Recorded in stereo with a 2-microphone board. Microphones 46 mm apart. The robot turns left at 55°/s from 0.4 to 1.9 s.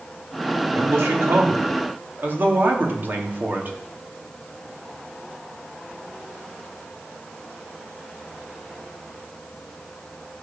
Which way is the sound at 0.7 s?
65° right.